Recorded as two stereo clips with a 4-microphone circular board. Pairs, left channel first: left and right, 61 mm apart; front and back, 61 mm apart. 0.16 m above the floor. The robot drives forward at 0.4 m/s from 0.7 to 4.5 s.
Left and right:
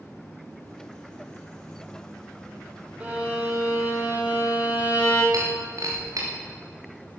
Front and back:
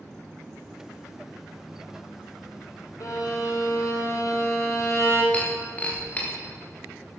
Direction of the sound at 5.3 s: 65° right.